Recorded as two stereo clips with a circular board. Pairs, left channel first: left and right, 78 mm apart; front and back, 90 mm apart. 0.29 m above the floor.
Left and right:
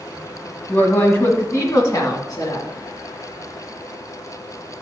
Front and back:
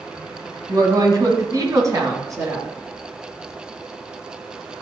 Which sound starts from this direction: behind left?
A woman speaking, at 0.7 s.